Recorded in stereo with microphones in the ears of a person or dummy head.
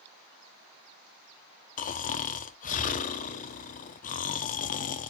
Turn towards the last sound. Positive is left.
turn(degrees=35)  # may be behind; listen again after turning